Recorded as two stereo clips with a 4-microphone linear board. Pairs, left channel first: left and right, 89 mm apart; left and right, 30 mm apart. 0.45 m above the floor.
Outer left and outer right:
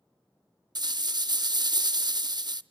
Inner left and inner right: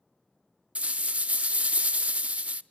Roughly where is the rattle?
Right.